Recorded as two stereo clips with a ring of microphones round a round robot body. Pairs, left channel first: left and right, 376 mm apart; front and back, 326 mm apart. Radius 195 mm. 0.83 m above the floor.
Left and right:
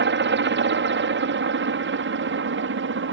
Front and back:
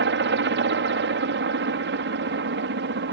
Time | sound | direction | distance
0.0 | a helicopter | 140° right | ?